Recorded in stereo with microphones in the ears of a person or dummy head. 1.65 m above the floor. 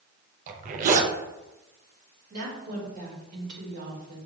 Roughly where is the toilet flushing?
No toilet flushing in this recording.